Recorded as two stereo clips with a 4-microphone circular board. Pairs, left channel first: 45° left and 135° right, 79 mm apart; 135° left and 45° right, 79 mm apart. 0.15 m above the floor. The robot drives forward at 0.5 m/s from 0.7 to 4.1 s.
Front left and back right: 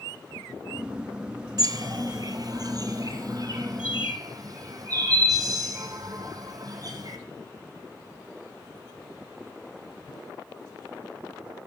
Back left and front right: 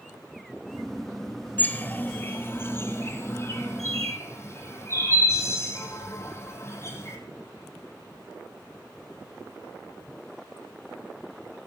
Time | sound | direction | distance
1.6 | a bird | 160° right | 0.9 m